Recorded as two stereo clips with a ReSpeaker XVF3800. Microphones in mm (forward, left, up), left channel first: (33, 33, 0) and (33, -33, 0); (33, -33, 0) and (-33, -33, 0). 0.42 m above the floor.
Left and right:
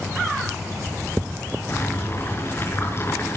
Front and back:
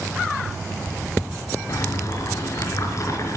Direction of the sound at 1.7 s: 40° left.